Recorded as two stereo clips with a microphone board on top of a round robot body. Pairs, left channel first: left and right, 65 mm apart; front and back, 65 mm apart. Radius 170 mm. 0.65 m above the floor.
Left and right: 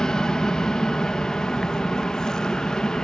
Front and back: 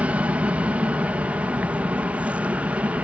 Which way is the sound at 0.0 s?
155° left.